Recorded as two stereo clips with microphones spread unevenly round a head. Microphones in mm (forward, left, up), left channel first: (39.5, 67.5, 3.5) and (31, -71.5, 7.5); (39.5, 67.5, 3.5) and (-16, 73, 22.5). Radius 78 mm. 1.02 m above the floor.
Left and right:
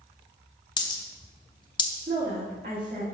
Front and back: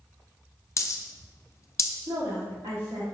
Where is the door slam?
I don't hear a door slam.